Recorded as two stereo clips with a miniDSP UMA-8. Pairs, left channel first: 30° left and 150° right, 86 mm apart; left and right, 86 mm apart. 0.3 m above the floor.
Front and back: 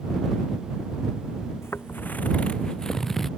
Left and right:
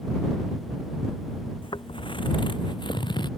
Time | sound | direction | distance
1.6 | footsteps | 90° left | ?